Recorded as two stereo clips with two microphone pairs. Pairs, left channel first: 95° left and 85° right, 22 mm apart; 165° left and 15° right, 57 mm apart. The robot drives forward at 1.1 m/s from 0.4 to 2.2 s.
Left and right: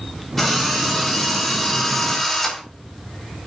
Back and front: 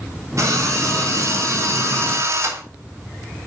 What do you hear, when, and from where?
0.4 s a drill: 20° left, 6.5 m; by 2.6 s 25° left, 4.5 m